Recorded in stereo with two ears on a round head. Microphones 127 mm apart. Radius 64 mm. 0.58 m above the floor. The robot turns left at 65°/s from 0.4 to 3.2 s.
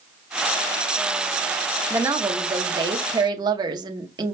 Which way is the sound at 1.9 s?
25° right.